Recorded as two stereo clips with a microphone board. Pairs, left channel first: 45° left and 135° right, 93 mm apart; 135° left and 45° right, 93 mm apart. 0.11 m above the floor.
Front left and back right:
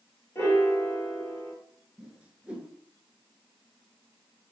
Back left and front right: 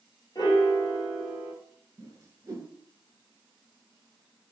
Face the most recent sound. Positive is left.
turn(degrees=-65)